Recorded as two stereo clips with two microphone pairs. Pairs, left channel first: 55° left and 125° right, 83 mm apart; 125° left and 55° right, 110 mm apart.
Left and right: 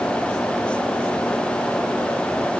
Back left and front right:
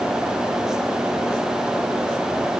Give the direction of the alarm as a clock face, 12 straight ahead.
No alarm in this recording.